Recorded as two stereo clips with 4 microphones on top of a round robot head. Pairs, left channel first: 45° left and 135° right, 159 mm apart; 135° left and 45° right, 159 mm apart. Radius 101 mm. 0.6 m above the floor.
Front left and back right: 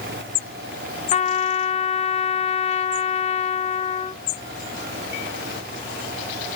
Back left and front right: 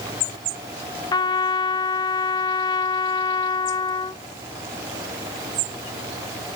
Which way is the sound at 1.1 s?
75° left.